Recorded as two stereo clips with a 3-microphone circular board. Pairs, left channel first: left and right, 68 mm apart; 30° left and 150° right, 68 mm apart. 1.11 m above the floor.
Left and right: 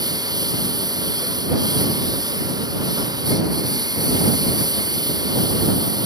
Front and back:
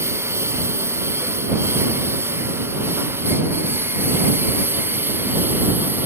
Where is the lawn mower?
100° right; by 6.1 s 90° right.